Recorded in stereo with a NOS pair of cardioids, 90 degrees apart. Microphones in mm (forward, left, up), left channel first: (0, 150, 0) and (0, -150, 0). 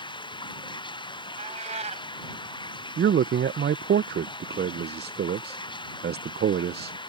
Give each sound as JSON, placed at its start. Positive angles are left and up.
{"t": 0.0, "sound": "running water", "azimuth_deg": 15}
{"t": 1.4, "sound": "a cat meowing", "azimuth_deg": -25}
{"t": 3.0, "sound": "a man speaking", "azimuth_deg": -40}